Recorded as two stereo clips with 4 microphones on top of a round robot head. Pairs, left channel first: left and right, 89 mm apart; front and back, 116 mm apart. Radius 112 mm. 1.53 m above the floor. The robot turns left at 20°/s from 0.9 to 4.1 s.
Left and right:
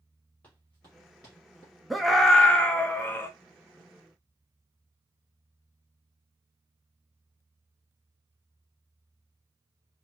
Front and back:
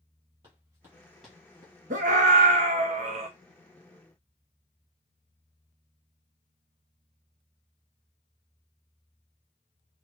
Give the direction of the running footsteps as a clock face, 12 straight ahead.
7 o'clock.